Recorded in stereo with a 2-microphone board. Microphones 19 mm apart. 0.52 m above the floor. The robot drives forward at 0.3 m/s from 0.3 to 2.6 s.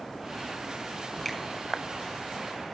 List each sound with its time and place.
1.2 s a finger snap: 15° left (ahead or behind), 4 m